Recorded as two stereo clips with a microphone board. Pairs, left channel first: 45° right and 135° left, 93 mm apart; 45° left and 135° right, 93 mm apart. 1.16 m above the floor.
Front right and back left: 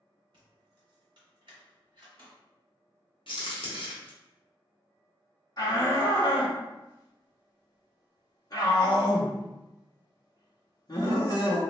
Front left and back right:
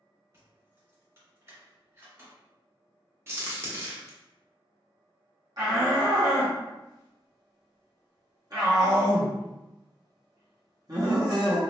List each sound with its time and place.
0.3 s keys jangling: 165° left, 2.0 m
3.3 s a crack: 70° right, 1.2 m
5.6 s a shout: 90° right, 1.2 m